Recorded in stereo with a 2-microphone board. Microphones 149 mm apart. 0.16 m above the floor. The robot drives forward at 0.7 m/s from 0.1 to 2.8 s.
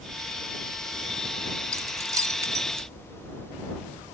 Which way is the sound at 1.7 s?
20° right (ahead or behind).